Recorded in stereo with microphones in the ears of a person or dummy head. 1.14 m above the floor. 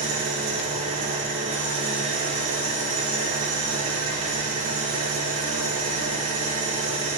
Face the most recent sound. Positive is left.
turn(degrees=-35)  # may be behind; listen again after turning